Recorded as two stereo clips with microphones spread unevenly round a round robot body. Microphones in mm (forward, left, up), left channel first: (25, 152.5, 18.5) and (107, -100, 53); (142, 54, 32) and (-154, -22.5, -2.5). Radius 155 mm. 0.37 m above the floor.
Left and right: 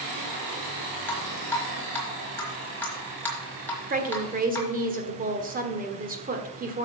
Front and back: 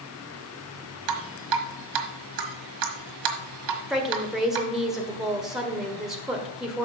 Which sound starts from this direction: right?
A woman speaking, at 3.9 s.